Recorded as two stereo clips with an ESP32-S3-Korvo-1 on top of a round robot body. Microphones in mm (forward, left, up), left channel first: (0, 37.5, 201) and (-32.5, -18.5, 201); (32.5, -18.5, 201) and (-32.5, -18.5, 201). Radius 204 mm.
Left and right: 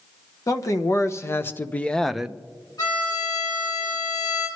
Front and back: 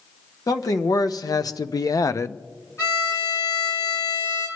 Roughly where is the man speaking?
Ahead left.